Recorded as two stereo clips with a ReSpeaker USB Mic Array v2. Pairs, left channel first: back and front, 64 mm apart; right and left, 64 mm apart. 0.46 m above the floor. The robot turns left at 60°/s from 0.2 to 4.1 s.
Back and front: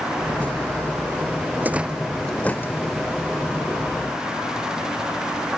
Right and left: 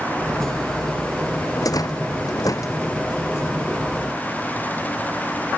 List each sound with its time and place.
1.6 s a rattle: 60° right; by 3.0 s 145° right